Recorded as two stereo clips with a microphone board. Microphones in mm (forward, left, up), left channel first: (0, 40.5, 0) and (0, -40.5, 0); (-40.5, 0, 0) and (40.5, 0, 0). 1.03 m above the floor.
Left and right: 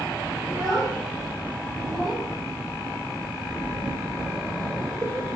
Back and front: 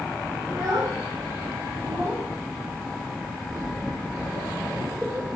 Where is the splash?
55° right, 2.5 m.